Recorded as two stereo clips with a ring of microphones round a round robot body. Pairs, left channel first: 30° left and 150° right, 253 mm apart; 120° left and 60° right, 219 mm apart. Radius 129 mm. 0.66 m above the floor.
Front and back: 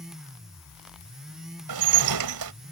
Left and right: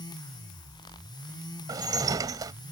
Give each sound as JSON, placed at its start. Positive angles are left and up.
{"t": 1.7, "sound": "dishes clattering", "azimuth_deg": -135}